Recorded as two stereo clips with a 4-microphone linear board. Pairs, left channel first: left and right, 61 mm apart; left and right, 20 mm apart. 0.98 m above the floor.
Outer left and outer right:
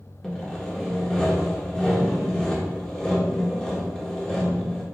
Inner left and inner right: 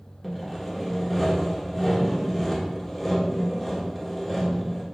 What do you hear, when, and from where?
0.2 s sawing: 10° left (ahead or behind), 1.1 m